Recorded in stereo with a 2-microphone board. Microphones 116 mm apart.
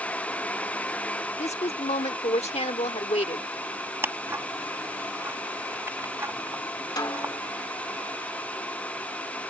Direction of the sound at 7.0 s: 35° left (ahead or behind).